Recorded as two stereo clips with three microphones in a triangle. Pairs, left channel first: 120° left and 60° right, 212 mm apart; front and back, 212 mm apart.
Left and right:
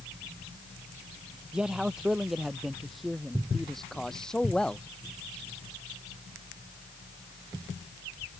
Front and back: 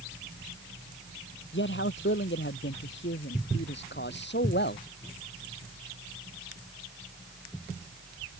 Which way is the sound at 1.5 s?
25° left.